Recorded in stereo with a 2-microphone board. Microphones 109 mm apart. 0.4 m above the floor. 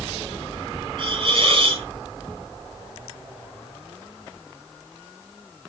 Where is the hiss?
45° right (ahead or behind), 4 m.